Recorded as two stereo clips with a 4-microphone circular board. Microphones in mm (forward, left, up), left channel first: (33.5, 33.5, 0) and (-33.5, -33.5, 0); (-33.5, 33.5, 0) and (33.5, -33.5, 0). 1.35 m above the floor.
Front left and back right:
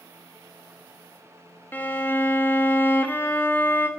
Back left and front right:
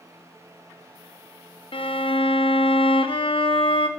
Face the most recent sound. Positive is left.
turn(degrees=115)